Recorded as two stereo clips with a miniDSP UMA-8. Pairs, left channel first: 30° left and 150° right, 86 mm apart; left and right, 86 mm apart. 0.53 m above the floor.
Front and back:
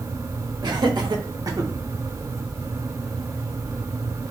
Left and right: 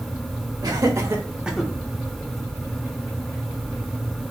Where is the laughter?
125° right, 1.7 m; by 1.7 s 165° left, 0.9 m.